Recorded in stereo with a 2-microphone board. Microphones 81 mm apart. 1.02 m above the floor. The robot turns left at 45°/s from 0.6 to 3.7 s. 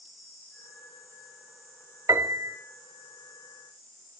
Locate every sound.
2.1 s a piano: 40° right (ahead or behind), 1.0 m; by 2.6 s 30° right (ahead or behind), 1.0 m